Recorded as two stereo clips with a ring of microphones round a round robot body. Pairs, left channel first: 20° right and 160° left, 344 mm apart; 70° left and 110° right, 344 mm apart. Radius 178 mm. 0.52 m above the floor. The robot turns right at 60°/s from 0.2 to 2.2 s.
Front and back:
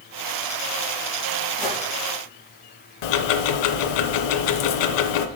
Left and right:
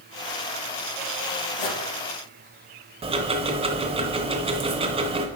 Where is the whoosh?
60° left, 4 m; by 1.8 s 75° left, 4 m.